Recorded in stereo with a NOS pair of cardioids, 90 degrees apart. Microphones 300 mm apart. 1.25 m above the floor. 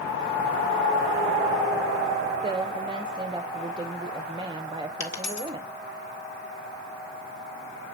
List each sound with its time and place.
2.4 s a woman speaking: 15° right, 0.8 m
5.0 s a dropped coin: 60° left, 1.8 m